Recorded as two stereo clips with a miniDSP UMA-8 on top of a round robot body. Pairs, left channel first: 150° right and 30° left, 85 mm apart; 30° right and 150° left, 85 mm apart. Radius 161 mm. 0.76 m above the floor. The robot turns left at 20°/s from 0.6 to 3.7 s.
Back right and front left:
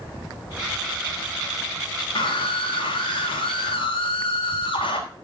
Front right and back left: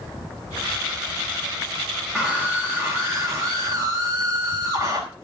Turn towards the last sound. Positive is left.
turn(degrees=-155)